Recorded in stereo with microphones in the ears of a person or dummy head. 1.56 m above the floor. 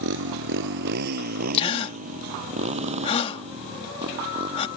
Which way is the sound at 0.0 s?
75° right (ahead or behind).